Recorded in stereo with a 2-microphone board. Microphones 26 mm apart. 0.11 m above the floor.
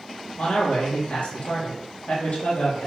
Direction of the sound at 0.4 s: 60° left (ahead or behind).